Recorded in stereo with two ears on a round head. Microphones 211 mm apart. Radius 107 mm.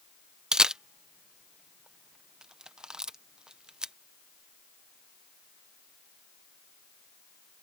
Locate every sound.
0.5 s a camera shutter: 5° right (ahead or behind)